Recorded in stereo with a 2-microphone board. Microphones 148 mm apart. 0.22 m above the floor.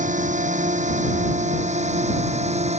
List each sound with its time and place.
0.0 s a drone: 55° right (ahead or behind); by 2.8 s 45° right (ahead or behind)